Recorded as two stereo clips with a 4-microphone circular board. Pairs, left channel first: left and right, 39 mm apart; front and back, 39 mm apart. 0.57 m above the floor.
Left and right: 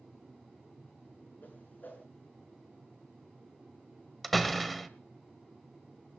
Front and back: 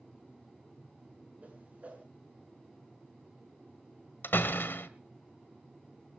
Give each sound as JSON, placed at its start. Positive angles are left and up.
{"t": 1.4, "sound": "a whoosh", "azimuth_deg": 130, "distance_m": 7.0}
{"t": 4.2, "sound": "a door slam", "azimuth_deg": 5, "distance_m": 1.6}